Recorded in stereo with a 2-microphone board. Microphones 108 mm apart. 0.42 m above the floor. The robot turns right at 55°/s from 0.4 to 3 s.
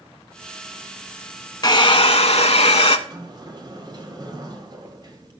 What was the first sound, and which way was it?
A hair dryer, 40° left.